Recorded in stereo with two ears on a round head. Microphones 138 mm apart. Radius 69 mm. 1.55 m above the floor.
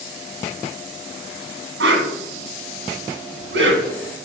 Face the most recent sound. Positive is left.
turn(degrees=-85)